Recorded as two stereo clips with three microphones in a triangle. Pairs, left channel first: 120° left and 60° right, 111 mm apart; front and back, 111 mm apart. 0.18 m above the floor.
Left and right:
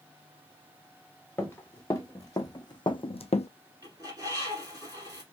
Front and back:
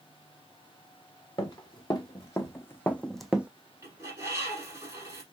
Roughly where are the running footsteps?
Ahead left.